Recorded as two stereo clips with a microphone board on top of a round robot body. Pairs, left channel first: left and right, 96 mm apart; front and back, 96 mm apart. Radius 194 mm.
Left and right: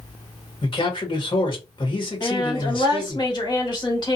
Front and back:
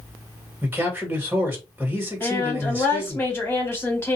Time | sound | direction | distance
0.6 | a man speaking | 110° left | 1.7 m
2.2 | a woman speaking | 65° left | 1.8 m